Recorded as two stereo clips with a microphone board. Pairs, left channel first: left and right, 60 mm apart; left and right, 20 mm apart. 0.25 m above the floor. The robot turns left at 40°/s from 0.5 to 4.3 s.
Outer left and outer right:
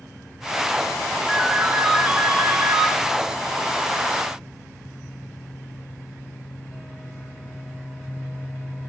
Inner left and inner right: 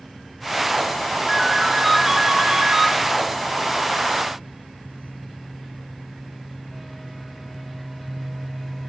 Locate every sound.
1.3 s a ringtone: straight ahead, 2 m; by 2.9 s 65° right, 2 m